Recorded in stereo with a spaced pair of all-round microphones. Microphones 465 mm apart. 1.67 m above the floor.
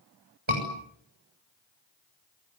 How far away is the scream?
About 7 m.